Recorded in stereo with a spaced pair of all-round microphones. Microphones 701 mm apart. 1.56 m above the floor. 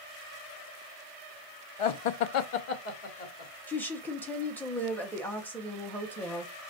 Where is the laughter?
50° left (ahead or behind), 0.5 m; by 3.5 s 55° left (ahead or behind), 1.2 m.